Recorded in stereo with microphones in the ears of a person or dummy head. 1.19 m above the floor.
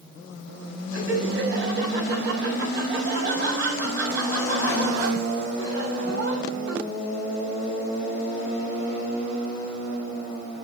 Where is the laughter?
60° right (ahead or behind), 7.5 m.